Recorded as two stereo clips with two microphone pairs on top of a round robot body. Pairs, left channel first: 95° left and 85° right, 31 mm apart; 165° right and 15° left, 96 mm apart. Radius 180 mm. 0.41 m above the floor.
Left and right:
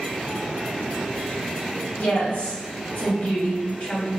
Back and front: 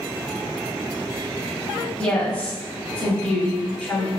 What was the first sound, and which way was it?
A woman speaking, 120° left.